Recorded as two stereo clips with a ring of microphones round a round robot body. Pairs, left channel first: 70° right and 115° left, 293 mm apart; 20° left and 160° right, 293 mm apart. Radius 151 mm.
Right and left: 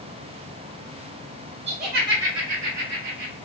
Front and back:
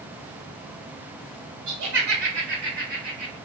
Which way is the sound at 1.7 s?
175° left.